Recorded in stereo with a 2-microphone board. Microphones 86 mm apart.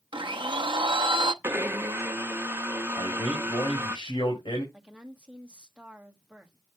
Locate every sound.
0.1 s a blender: 70° right (ahead or behind), 0.6 m
1.4 s a blender: 25° right (ahead or behind), 0.9 m
3.0 s a man speaking: 75° left (ahead or behind), 4.5 m
4.7 s a woman speaking: 15° right (ahead or behind), 1.4 m